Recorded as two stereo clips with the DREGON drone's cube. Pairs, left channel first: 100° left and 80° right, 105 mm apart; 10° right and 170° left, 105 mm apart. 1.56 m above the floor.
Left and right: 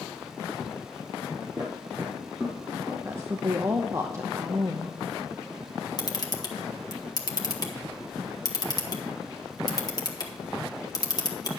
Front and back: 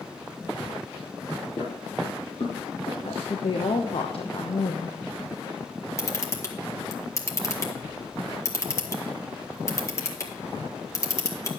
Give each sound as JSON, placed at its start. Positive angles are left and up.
{"t": 1.6, "sound": "footsteps", "azimuth_deg": -25, "distance_m": 2.5}
{"t": 3.0, "sound": "a woman speaking", "azimuth_deg": -20, "distance_m": 0.9}
{"t": 6.0, "sound": "a camera shutter", "azimuth_deg": 50, "distance_m": 1.5}